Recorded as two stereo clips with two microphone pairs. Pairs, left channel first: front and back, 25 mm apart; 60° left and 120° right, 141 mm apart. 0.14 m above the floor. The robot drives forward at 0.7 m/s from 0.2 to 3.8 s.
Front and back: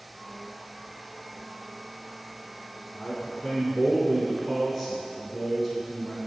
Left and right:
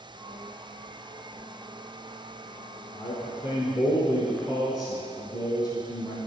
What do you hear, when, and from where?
2.9 s a man speaking: 40° left, 1.4 m; by 6.2 s 85° left, 1.2 m